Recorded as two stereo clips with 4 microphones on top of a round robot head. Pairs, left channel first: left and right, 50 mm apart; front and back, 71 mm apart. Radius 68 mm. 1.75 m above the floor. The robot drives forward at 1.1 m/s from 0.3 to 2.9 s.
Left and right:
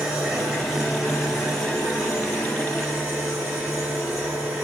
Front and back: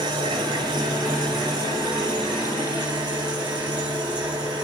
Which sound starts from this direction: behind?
An engine running, at 0.0 s.